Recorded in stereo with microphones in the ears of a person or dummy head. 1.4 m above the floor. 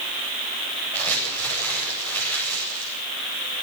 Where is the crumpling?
15° left (ahead or behind), 8.5 m.